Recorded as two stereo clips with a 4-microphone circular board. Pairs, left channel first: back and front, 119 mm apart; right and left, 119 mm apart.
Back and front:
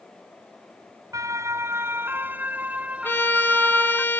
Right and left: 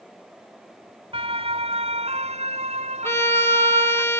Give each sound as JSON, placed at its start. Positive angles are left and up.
{"t": 1.1, "sound": "a siren", "azimuth_deg": 60}
{"t": 3.0, "sound": "a violin", "azimuth_deg": -130}